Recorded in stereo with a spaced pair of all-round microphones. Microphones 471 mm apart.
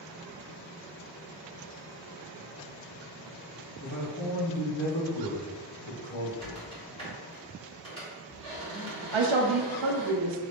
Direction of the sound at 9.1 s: 80° right.